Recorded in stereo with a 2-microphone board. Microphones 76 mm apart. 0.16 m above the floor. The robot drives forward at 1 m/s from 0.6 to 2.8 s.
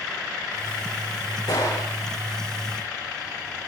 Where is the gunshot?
65° left (ahead or behind), 9 m.